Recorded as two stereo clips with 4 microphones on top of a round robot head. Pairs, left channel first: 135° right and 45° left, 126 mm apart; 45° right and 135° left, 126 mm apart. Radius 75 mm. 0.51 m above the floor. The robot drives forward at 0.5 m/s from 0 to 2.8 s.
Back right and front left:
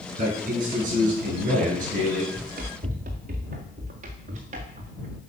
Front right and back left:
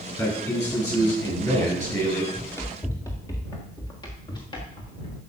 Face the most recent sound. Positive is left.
turn(degrees=10)